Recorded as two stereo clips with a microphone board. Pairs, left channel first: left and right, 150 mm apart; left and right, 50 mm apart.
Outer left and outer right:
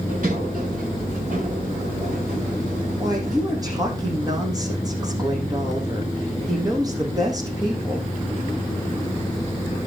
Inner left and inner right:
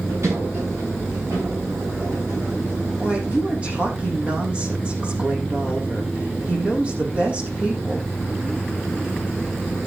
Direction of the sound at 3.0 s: 25° right (ahead or behind).